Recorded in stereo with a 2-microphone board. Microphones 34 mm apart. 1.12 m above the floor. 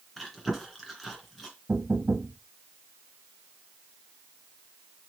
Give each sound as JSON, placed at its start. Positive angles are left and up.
{"t": 0.2, "sound": "chewing", "side_deg": 5, "distance_m": 2.5}
{"t": 1.7, "sound": "knocking", "side_deg": -50, "distance_m": 0.9}